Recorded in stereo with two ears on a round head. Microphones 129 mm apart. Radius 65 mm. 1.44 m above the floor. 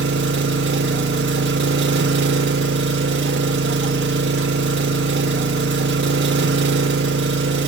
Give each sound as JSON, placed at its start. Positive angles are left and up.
{"t": 0.0, "sound": "an engine running", "side_deg": -80, "distance_m": 0.7}